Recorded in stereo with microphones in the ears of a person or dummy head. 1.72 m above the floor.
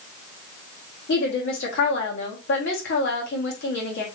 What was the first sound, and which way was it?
A woman speaking, 60° left (ahead or behind).